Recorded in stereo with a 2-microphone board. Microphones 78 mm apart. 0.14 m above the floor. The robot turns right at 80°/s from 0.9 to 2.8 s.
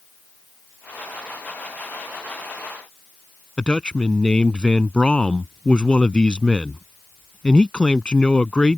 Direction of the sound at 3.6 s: 15° left (ahead or behind).